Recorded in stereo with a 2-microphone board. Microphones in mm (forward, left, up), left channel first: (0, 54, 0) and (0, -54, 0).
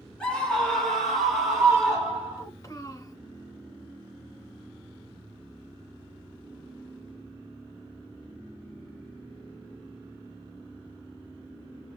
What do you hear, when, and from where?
0.2 s a scream: 10° left (ahead or behind), 2.5 m; by 2.5 s 5° right (ahead or behind), 3.5 m
2.4 s a child speaking: 35° left (ahead or behind), 1.2 m